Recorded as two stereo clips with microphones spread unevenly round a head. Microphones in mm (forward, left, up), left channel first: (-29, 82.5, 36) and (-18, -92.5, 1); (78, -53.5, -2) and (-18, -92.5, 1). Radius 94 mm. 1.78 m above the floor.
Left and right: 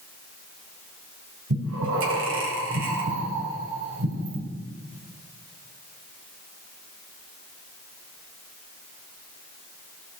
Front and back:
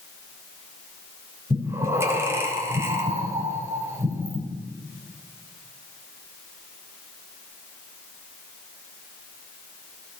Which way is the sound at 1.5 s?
95° right.